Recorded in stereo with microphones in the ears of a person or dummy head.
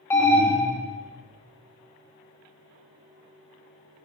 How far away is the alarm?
About 1.5 m.